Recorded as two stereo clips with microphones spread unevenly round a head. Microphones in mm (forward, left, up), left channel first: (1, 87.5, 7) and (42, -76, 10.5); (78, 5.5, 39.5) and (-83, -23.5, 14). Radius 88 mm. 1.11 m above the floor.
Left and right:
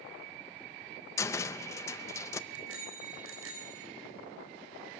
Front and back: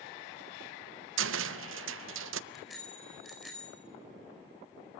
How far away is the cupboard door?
About 0.5 m.